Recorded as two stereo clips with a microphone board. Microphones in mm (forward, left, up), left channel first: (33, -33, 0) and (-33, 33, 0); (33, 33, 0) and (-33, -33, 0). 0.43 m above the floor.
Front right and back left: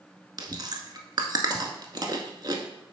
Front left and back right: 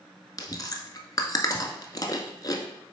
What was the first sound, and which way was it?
Chewing, 95° left.